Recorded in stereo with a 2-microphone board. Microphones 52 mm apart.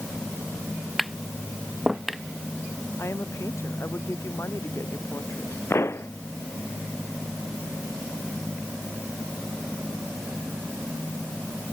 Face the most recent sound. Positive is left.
turn(degrees=50)  # may be behind; listen again after turning